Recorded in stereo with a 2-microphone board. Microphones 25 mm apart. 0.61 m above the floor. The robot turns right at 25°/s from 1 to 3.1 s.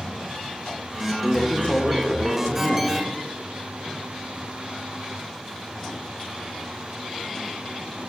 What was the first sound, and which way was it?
A woman speaking, 55° left.